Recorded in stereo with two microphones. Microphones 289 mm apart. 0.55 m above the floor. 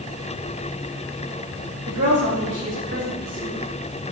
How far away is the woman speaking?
About 3.5 m.